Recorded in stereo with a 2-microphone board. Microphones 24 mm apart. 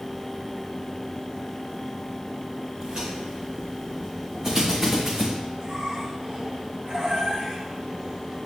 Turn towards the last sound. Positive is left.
turn(degrees=-50)  # may be behind; listen again after turning